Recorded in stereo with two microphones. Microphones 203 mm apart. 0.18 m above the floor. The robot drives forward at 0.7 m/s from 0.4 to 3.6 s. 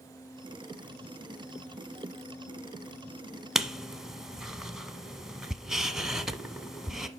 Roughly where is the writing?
Centre.